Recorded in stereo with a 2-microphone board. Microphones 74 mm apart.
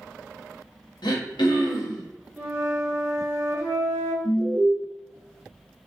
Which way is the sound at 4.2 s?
50° left (ahead or behind).